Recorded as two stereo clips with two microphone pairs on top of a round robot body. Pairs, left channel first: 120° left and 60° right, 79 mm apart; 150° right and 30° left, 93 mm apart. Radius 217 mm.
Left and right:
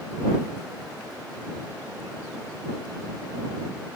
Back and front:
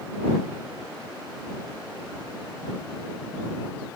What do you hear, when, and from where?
Only background noise.